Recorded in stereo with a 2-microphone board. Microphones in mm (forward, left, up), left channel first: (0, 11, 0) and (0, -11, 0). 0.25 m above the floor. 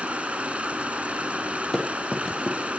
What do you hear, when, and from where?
0.0 s running water: 75° right (ahead or behind), 0.7 m
1.7 s running footsteps: 15° left (ahead or behind), 6.5 m